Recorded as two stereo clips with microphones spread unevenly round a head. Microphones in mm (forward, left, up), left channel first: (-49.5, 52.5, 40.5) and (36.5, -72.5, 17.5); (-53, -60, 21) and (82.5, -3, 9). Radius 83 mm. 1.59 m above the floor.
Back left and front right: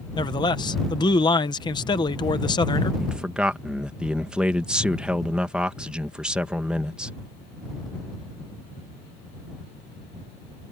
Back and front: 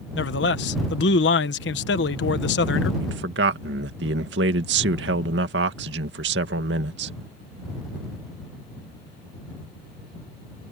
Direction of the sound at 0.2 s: 170° right.